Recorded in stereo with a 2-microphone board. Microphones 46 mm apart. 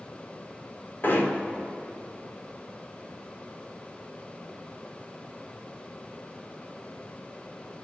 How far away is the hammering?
About 2.5 m.